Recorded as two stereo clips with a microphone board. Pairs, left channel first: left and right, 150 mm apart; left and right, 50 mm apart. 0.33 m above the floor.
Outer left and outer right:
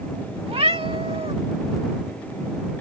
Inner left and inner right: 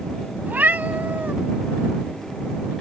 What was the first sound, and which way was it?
A cat meowing, 40° right (ahead or behind).